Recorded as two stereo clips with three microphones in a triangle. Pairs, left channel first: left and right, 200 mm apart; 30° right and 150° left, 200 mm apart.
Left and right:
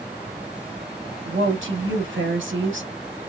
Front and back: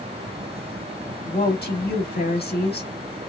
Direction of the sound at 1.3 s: 70° right.